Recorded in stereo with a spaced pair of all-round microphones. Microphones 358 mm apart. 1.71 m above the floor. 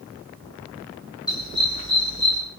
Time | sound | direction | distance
1.3 | a dog barking | 10° left (ahead or behind) | 6 m